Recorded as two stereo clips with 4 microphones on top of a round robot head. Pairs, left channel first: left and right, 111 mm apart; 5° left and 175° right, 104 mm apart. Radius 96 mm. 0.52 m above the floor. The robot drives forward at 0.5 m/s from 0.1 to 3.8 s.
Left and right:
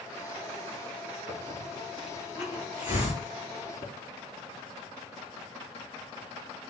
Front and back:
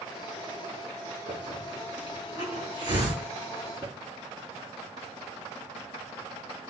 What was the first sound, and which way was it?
A hiss, 135° left.